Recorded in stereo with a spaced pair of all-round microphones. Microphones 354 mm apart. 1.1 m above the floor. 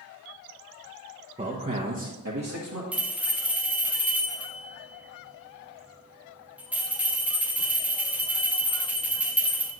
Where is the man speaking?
20° right (ahead or behind), 0.9 m; by 2.8 s 55° right (ahead or behind), 1.4 m.